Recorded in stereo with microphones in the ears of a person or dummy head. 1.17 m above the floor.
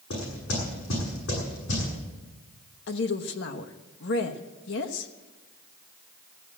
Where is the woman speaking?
60° left (ahead or behind), 1.2 m.